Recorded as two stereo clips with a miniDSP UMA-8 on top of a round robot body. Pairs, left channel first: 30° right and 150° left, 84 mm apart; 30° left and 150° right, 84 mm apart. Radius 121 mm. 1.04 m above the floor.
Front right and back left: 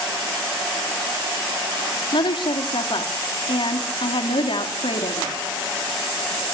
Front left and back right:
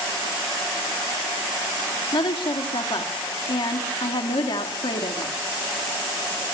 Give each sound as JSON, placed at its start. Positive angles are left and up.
{"t": 2.1, "sound": "a woman speaking", "azimuth_deg": 0, "distance_m": 2.5}